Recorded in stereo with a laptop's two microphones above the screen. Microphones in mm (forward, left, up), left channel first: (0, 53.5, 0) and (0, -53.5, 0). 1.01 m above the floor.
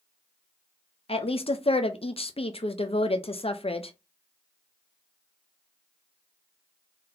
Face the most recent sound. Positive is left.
turn(degrees=65)  # may be behind; listen again after turning